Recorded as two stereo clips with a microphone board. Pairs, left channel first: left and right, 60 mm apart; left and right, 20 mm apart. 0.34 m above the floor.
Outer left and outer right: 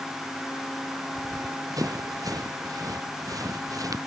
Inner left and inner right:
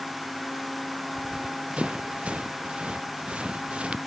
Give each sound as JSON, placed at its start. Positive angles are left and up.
{"t": 1.1, "sound": "running footsteps", "side_deg": -85}